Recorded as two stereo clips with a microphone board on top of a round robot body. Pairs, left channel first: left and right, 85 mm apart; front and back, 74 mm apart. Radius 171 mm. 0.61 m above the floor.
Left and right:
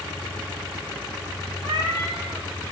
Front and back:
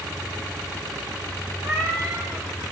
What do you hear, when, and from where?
1.6 s a cat meowing: 130° right, 0.6 m